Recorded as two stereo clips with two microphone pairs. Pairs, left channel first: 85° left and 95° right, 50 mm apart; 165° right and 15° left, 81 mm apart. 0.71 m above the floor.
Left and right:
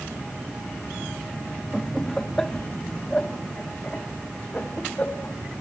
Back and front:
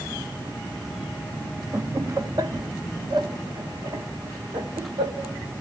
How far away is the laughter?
About 0.8 m.